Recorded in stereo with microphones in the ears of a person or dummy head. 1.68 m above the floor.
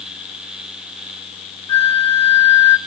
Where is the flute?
30° left (ahead or behind), 1.6 m.